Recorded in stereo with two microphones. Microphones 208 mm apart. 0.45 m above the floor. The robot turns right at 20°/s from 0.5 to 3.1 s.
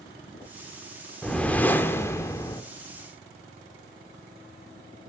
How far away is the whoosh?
About 0.7 m.